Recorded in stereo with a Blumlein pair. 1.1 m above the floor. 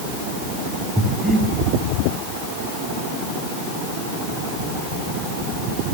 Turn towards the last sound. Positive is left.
turn(degrees=0)